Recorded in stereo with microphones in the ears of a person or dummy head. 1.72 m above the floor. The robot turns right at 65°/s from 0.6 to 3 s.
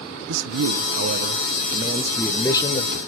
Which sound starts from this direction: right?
A man speaking, at 0.3 s.